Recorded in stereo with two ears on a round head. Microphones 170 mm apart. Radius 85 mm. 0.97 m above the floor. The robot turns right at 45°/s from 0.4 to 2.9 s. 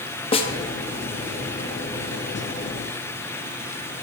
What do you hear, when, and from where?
0.3 s a snare drum: 30° left (ahead or behind), 1.0 m; by 0.5 s 35° left (ahead or behind), 1.0 m